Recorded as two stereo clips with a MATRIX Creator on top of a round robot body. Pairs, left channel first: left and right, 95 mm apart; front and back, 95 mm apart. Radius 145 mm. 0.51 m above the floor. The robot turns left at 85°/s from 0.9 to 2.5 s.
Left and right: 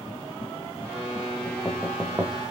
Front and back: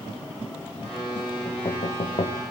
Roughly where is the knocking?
Ahead left.